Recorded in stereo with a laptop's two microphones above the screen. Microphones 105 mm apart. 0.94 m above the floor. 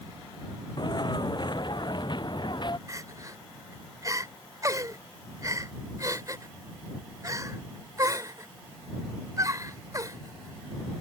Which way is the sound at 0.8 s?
45° left (ahead or behind).